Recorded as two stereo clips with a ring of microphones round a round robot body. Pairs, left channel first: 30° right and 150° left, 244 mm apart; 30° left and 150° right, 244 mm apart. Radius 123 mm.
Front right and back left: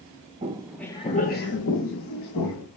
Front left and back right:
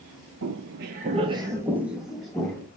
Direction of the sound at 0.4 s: 155° right.